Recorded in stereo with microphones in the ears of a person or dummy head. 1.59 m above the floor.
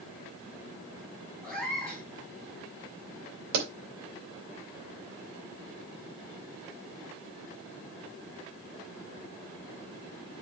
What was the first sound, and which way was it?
A cat meowing, 5° left (ahead or behind).